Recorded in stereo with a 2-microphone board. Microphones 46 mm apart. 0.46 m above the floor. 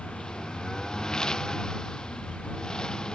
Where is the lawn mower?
15° left (ahead or behind).